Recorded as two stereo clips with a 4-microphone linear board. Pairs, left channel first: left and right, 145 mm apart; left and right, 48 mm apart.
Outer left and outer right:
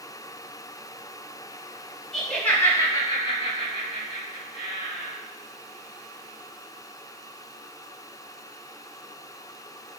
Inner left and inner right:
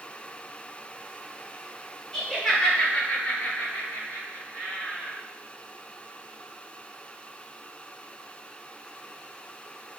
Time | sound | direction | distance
2.1 | laughter | 5° left (ahead or behind) | 1.4 m